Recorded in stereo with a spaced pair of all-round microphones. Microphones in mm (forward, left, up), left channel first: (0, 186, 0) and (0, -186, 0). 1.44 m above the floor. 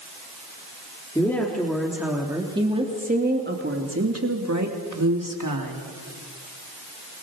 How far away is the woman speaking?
About 3 m.